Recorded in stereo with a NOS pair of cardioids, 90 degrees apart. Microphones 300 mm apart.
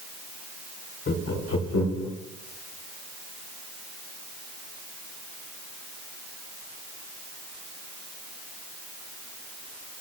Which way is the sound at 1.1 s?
40° left.